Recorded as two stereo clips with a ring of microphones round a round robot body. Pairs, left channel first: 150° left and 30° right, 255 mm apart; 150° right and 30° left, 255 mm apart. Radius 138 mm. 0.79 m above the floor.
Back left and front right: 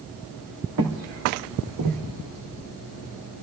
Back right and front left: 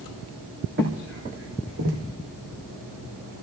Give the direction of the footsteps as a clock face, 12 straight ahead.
1 o'clock.